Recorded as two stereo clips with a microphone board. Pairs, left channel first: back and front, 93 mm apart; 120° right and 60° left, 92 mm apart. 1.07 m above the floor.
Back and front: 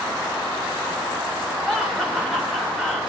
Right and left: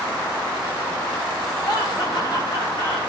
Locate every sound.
1.6 s laughter: 90° right, 5 m